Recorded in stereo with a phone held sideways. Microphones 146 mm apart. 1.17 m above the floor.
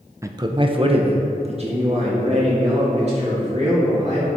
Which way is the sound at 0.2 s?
20° right (ahead or behind).